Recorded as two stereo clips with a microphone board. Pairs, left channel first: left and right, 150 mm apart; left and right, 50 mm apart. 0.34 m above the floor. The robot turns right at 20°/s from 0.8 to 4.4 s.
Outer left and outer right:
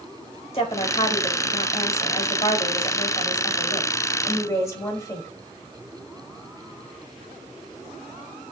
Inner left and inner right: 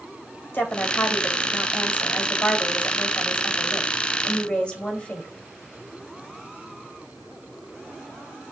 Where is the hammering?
I don't hear hammering.